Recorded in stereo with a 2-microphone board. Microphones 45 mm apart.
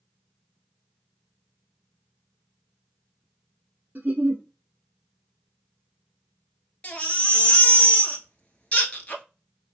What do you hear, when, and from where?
4.0 s a giggle: 40° right (ahead or behind), 1.0 m
6.8 s a baby crying: 30° left (ahead or behind), 0.8 m